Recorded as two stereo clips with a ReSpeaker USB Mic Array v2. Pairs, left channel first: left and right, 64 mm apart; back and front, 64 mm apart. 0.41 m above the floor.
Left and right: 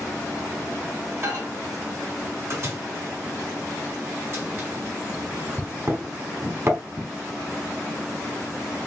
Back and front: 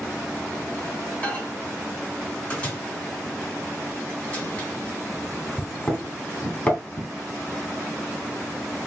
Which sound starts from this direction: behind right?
A microwave, at 1.2 s.